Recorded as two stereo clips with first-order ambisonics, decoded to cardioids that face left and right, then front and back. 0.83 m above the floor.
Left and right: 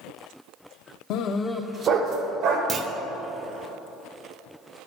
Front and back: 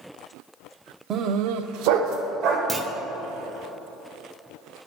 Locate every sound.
1.1 s a dog barking: 125° left, 0.6 m; by 2.6 s 135° right, 1.6 m
2.7 s a clunk: 120° right, 0.5 m